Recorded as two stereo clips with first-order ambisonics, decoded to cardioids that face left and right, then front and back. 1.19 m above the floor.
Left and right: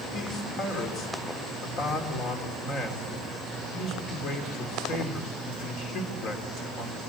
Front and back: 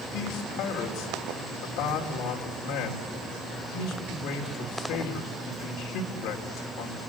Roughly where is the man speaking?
Ahead left.